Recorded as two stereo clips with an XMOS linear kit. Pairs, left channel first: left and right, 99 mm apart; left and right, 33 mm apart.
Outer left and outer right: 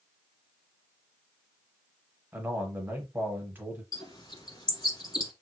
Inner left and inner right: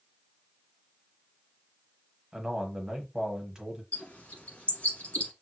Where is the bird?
45° left (ahead or behind), 1.4 m.